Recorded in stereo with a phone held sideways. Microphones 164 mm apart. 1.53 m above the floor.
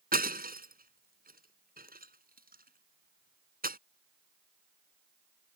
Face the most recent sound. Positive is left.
turn(degrees=-65)  # may be behind; listen again after turning